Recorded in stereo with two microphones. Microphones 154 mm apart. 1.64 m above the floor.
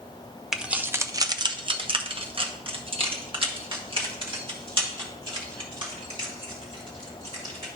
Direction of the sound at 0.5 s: 5° right (ahead or behind).